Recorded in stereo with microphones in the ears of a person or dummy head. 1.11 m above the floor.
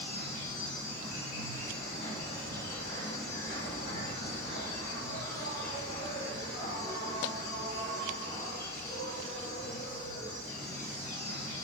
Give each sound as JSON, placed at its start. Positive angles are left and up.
{"t": 0.0, "sound": "an insect", "side_deg": 60, "distance_m": 1.8}